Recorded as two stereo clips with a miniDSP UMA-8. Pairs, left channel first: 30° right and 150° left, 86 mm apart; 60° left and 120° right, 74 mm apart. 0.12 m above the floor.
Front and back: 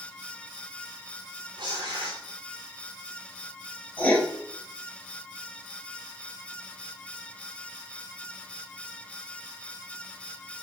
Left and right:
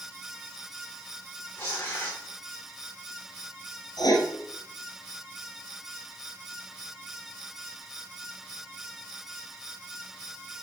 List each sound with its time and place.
1.6 s tearing paper: 115° left, 5 m
4.0 s writing: 40° left, 2.5 m